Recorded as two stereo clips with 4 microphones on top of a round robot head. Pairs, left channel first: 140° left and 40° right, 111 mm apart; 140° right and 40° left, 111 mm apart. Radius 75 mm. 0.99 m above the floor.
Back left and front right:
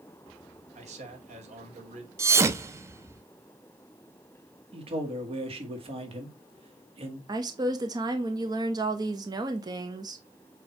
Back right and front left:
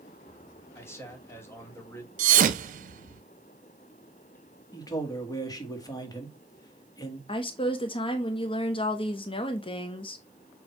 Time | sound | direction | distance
0.8 | a man speaking | 70° right | 2.5 m
2.2 | a thud | 25° left | 0.6 m
4.7 | a man speaking | 80° right | 2.0 m
7.3 | a woman speaking | 95° right | 1.1 m